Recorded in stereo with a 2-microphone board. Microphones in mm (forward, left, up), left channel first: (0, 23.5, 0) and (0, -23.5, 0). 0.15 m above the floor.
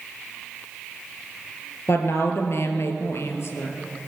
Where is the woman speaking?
65° left (ahead or behind), 3 m.